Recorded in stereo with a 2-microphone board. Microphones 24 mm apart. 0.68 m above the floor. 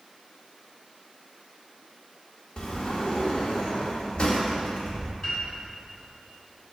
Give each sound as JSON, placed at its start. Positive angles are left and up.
{"t": 2.6, "sound": "a sliding door", "side_deg": 50, "distance_m": 1.0}
{"t": 5.2, "sound": "a piano", "side_deg": 40, "distance_m": 2.5}